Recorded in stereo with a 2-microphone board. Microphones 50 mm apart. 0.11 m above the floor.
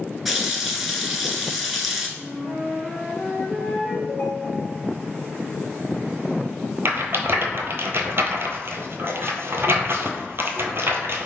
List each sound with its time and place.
0.2 s a running tap: centre (ahead or behind), 0.8 m
2.2 s a flute: centre (ahead or behind), 1.4 m
4.1 s a ringtone: 35° left (ahead or behind), 1.5 m
6.8 s a rattle: 55° right (ahead or behind), 0.7 m